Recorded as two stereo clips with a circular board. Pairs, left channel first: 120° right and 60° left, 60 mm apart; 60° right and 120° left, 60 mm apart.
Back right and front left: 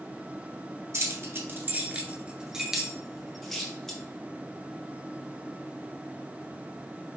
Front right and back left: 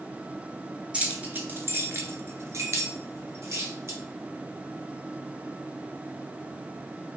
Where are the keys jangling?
60° left, 1.1 m; by 4.0 s 160° left, 1.9 m.